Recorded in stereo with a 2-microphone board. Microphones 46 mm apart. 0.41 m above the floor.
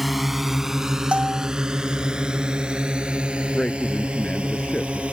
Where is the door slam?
I don't hear a door slam.